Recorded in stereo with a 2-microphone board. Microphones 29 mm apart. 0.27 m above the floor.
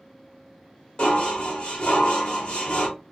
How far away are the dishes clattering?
About 1.0 m.